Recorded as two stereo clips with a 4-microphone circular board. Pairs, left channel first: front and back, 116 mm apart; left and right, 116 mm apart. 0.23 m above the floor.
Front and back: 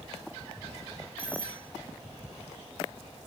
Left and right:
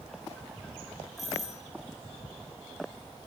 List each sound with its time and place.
1.2 s a doorbell: 80° left, 8.5 m